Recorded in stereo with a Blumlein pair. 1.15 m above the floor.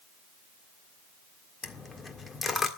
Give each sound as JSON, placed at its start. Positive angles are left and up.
{"t": 1.6, "sound": "a dropped coin", "azimuth_deg": 15, "distance_m": 1.7}